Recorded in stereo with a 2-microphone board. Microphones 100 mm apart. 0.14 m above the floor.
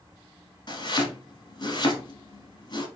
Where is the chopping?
45° left (ahead or behind), 1.2 m.